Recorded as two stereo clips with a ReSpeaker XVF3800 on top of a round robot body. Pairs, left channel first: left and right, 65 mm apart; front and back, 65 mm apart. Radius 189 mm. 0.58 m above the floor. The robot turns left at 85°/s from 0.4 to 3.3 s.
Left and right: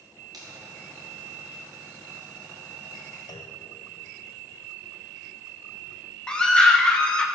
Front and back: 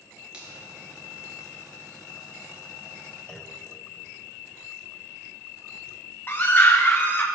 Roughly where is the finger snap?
Right.